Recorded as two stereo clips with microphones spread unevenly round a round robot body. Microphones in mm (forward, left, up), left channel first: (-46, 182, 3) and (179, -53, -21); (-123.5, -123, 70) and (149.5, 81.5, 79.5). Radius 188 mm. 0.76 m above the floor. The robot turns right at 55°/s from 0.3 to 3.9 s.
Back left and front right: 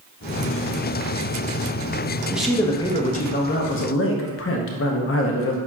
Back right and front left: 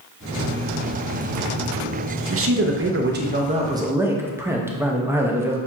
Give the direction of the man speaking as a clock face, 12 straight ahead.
11 o'clock.